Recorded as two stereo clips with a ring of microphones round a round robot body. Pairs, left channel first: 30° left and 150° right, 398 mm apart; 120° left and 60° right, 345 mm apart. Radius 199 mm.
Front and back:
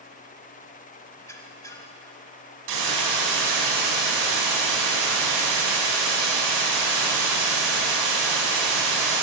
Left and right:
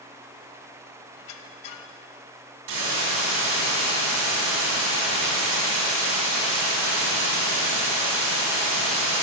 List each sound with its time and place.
1.2 s a squeak: 110° left, 0.9 m
2.7 s a hiss: 110° right, 3 m